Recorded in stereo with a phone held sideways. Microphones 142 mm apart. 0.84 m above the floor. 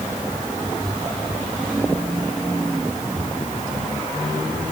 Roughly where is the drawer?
No drawer in this recording.